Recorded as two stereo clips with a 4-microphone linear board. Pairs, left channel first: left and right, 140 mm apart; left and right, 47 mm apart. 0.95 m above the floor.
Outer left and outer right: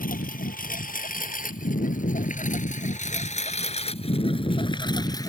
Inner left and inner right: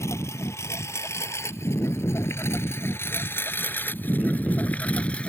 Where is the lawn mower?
85° left; by 5.3 s 25° left (ahead or behind).